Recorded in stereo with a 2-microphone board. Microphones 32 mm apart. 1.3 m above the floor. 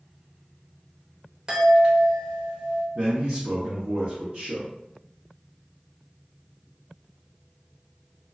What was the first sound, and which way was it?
A chime, 25° right (ahead or behind).